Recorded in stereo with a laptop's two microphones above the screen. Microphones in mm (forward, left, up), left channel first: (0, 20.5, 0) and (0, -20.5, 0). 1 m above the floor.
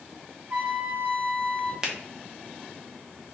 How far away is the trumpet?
About 1.2 m.